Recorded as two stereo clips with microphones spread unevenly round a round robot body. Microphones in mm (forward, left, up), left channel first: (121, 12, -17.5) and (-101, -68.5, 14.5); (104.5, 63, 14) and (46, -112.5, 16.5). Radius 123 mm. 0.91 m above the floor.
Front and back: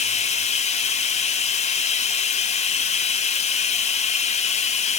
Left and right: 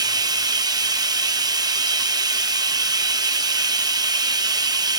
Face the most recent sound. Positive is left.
turn(degrees=-40)